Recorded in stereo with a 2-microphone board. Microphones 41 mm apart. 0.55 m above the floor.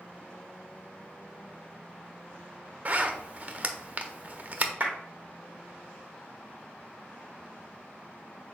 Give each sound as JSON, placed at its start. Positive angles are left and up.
{"t": 2.9, "sound": "a zipper", "side_deg": -35, "distance_m": 0.5}
{"t": 4.8, "sound": "a clap", "side_deg": -40, "distance_m": 1.2}